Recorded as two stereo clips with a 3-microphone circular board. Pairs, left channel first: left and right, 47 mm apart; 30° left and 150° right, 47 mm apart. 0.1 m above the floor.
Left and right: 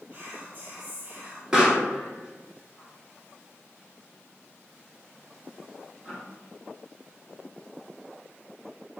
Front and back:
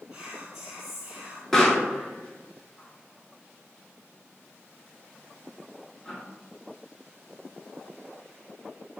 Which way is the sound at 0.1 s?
80° right.